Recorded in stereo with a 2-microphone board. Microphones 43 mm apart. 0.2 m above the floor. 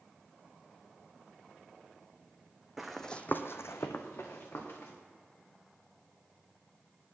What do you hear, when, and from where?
2.8 s running footsteps: 5° right (ahead or behind), 0.9 m; by 4.9 s 60° left (ahead or behind), 2 m